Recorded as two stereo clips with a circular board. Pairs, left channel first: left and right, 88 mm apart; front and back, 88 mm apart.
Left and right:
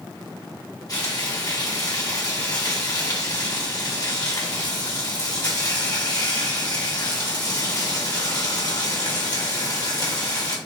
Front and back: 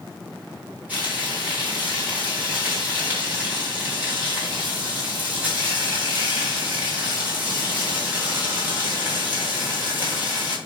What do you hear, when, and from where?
0.9 s frying: 115° left, 1.9 m